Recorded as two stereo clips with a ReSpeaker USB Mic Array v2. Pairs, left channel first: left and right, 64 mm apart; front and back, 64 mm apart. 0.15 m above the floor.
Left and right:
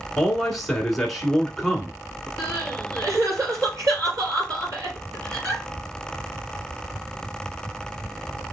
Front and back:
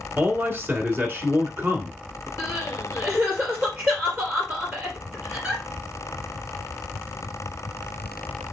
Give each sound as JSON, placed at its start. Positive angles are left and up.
{"t": 0.2, "sound": "a man speaking", "azimuth_deg": 175, "distance_m": 1.3}
{"t": 2.4, "sound": "crying", "azimuth_deg": -120, "distance_m": 3.5}